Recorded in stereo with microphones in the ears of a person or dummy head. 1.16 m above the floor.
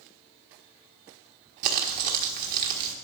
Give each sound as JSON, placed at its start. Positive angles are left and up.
{"t": 1.6, "sound": "crumpling", "side_deg": -50, "distance_m": 1.4}